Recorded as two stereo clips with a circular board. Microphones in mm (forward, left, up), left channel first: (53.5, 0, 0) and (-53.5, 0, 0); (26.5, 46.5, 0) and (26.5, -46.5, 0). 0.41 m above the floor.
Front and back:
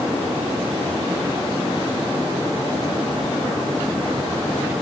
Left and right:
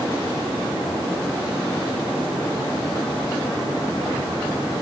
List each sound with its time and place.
Only background noise.